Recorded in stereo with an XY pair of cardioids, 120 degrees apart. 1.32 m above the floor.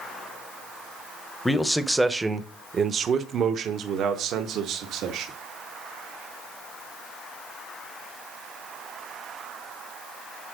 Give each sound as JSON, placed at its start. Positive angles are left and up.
{"t": 1.4, "sound": "a man speaking", "azimuth_deg": 15, "distance_m": 0.9}